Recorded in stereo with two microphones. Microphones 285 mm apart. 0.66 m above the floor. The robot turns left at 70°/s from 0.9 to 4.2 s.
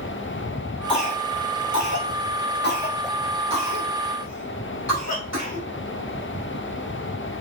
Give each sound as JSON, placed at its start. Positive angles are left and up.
{"t": 0.9, "sound": "a cough", "side_deg": 20, "distance_m": 4.5}